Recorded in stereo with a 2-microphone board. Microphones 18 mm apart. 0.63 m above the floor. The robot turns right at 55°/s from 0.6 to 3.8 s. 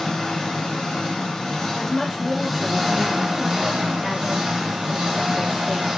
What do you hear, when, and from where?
0.0 s an engine running: 80° left, 1.3 m; by 6.0 s 105° right, 1.3 m
1.8 s a woman speaking: 80° left, 1.2 m; by 5.9 s 170° right, 1.2 m